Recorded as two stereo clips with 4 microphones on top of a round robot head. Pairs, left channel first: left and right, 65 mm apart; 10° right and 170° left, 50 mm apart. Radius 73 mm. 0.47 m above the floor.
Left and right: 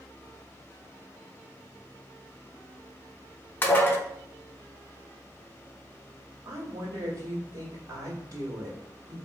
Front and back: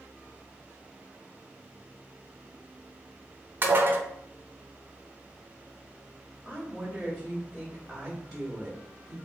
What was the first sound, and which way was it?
Dishes clattering, 140° left.